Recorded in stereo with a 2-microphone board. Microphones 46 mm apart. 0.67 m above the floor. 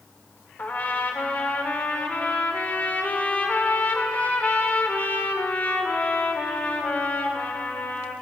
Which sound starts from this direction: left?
A trumpet, at 0.6 s.